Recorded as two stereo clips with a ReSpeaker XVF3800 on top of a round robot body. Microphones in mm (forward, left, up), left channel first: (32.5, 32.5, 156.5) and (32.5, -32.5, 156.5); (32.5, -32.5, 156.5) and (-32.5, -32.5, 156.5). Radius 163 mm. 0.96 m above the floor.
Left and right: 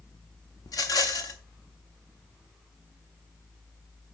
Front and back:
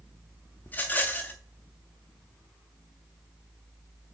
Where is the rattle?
70° left, 0.8 m.